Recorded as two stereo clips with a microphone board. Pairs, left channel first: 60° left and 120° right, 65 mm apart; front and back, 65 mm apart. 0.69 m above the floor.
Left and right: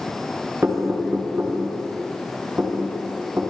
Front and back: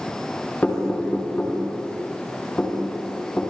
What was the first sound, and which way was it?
Knocking, 65° right.